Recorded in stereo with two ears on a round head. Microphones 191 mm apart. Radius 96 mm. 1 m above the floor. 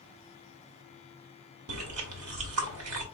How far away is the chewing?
About 1.2 m.